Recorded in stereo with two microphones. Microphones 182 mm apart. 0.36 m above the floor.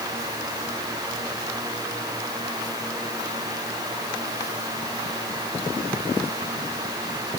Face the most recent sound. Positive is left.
No sound to turn to.